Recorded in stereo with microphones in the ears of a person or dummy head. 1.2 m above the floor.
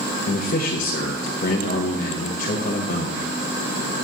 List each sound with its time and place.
0.3 s a man speaking: 45° left (ahead or behind), 1.1 m